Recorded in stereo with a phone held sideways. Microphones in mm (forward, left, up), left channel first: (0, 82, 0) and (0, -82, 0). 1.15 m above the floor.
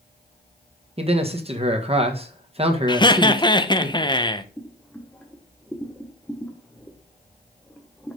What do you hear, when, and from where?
1.0 s a man speaking: 35° right (ahead or behind), 1.4 m
2.9 s laughter: 25° left (ahead or behind), 0.8 m
4.6 s boiling: 5° left (ahead or behind), 1.2 m